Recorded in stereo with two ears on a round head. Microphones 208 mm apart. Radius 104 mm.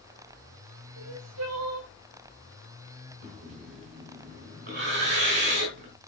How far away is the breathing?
About 5 m.